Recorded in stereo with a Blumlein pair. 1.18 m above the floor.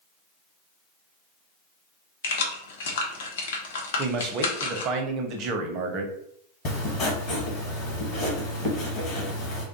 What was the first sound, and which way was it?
Keys jangling, 60° left.